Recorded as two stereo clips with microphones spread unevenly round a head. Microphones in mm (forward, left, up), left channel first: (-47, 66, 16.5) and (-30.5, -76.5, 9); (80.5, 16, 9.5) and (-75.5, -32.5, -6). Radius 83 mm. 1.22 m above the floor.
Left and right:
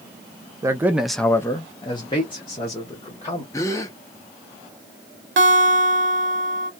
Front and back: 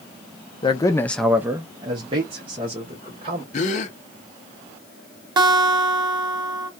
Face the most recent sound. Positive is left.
turn(degrees=-100)